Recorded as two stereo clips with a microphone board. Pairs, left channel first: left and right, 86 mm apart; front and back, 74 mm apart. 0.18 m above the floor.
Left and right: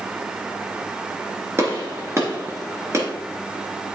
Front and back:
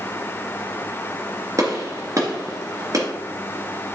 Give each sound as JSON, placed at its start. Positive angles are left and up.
{"t": 1.6, "sound": "a gunshot", "azimuth_deg": -145, "distance_m": 2.0}